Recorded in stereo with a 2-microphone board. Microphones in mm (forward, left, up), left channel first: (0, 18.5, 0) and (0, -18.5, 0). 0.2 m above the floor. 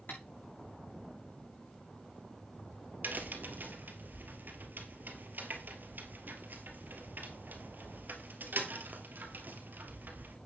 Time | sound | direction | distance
0.1 | tapping | 75° left (ahead or behind) | 6.5 m
3.0 | a crack | 65° right (ahead or behind) | 2 m